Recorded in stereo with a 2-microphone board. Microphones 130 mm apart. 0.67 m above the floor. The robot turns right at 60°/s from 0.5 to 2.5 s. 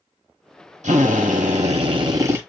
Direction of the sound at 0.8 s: 110° right.